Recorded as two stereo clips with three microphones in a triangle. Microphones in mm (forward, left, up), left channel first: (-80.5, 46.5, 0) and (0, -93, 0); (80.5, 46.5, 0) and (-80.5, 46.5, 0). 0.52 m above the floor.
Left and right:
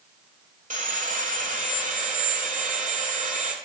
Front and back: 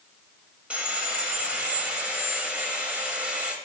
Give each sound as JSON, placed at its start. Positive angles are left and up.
{"t": 0.7, "sound": "sawing", "azimuth_deg": -100, "distance_m": 1.0}